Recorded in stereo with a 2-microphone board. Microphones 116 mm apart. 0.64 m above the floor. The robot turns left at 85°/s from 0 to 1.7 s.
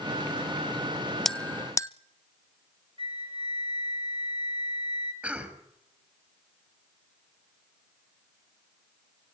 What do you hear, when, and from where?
1.2 s a bell: centre (ahead or behind), 0.5 m; by 1.9 s 25° left (ahead or behind), 0.5 m
3.0 s a flute: 50° right (ahead or behind), 2 m
5.2 s a cough: 10° right (ahead or behind), 4 m